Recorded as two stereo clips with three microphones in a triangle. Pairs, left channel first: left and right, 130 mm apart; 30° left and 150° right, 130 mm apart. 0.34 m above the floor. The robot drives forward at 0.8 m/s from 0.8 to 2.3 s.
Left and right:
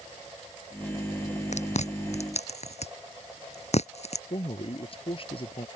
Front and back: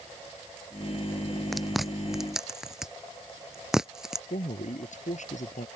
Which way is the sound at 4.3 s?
45° left.